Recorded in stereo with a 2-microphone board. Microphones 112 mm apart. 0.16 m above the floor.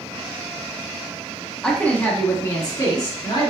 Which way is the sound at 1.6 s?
10° left (ahead or behind).